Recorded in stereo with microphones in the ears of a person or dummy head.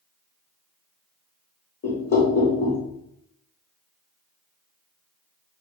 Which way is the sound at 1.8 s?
55° left (ahead or behind).